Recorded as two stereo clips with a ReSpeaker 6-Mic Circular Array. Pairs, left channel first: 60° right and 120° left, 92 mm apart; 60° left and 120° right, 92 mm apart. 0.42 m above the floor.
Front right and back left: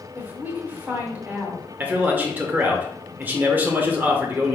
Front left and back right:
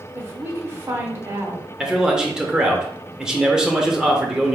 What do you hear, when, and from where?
0.1 s a woman speaking: 175° right, 1.1 m
1.8 s a man speaking: 165° left, 0.8 m